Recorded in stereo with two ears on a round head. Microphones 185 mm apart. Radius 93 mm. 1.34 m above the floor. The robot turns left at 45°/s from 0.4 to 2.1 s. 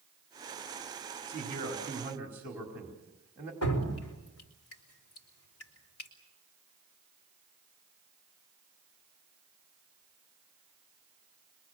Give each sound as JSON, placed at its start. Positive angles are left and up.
{"t": 1.3, "sound": "a man speaking", "azimuth_deg": -130, "distance_m": 4.5}
{"t": 3.6, "sound": "dripping", "side_deg": 90, "distance_m": 4.0}